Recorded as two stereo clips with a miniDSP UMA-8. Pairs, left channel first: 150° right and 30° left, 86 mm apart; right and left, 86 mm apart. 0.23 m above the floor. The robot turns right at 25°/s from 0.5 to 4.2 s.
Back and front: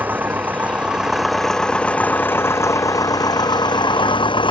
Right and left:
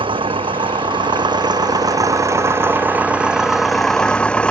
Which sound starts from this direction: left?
An engine running, at 0.0 s.